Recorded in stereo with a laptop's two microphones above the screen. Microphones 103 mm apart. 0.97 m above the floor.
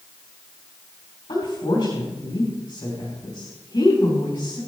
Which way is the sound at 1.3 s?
45° left (ahead or behind).